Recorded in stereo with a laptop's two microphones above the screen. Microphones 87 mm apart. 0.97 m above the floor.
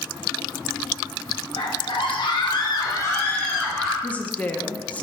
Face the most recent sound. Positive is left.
turn(degrees=15)  # may be behind; listen again after turning